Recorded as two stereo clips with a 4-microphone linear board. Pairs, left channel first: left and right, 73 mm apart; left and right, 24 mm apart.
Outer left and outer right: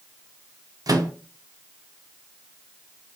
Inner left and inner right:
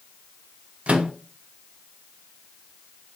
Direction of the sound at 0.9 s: 55° right (ahead or behind).